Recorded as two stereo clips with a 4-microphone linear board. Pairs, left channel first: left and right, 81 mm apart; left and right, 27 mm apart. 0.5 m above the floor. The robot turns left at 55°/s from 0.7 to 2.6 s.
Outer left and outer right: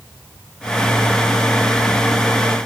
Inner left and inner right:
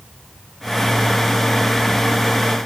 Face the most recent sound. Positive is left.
No sound to turn to.